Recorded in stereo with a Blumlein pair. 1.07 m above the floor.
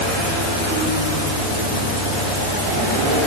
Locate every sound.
Only background noise.